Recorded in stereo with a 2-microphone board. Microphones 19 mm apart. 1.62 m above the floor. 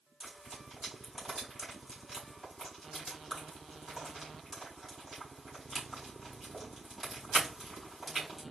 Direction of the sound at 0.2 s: 5° right (ahead or behind).